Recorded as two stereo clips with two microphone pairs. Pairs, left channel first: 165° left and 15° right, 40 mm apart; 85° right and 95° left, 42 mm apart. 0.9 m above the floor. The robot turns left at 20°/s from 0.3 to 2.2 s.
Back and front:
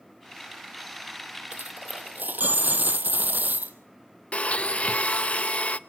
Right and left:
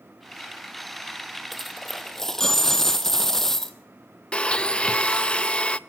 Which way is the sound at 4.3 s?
145° right.